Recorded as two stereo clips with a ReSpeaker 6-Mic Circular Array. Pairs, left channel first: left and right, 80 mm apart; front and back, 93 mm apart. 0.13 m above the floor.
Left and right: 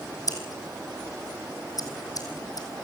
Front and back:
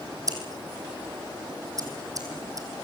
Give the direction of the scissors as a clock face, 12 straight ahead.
8 o'clock.